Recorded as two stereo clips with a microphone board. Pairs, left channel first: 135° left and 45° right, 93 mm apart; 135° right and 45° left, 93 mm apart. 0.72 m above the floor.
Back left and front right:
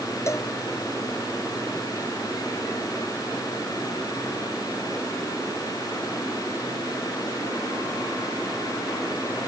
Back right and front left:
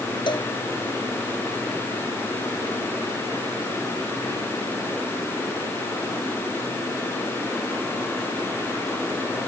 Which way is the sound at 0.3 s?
165° right.